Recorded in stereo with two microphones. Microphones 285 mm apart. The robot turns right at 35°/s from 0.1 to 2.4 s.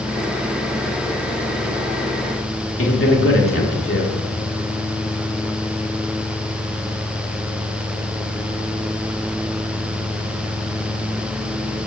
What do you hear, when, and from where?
2.8 s a man speaking: 50° left (ahead or behind), 1.1 m